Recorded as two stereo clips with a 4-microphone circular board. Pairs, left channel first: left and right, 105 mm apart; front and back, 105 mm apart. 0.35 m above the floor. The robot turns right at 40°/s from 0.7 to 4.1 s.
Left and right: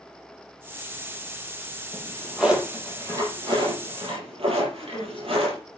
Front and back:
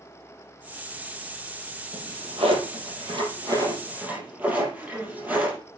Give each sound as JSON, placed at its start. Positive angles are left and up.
{"t": 1.9, "sound": "a drawer", "azimuth_deg": 165, "distance_m": 5.0}
{"t": 4.8, "sound": "a woman speaking", "azimuth_deg": 110, "distance_m": 3.0}